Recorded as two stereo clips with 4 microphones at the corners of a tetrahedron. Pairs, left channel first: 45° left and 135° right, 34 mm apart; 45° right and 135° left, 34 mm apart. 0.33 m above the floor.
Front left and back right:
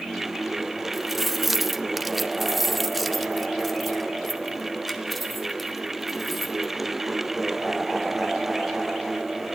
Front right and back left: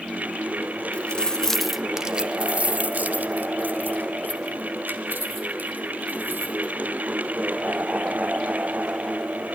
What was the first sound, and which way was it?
Keys jangling, 55° right.